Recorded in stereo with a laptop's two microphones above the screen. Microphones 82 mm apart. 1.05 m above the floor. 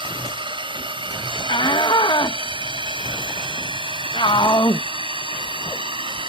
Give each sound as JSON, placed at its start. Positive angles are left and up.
{"t": 0.0, "sound": "a drone", "side_deg": -75}
{"t": 1.5, "sound": "a shout", "side_deg": 70}